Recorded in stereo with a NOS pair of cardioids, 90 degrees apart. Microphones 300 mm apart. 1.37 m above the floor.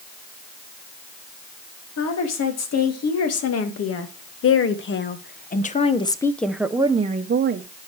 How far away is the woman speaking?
About 3 m.